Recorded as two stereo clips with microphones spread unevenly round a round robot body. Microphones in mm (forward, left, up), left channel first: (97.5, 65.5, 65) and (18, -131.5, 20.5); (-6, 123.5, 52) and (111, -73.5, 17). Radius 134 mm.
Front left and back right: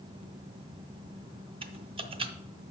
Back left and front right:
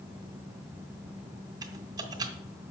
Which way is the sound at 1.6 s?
105° right.